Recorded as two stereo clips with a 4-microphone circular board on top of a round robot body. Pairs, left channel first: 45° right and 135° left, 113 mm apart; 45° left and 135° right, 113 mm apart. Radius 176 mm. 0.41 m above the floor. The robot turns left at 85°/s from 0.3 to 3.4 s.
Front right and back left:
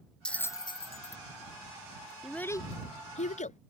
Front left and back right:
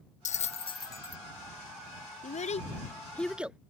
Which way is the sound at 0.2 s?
35° left.